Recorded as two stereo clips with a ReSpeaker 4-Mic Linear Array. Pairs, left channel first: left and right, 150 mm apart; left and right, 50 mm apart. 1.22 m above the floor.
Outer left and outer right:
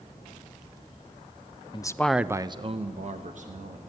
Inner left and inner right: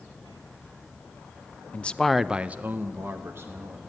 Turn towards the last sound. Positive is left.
turn(degrees=-65)  # may be behind; listen again after turning